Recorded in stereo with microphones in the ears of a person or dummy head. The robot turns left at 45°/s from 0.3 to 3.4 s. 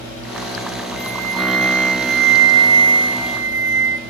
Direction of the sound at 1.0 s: 5° right.